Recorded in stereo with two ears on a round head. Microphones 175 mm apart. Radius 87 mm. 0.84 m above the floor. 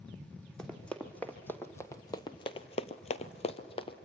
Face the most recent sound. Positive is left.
turn(degrees=25)  # may be behind; listen again after turning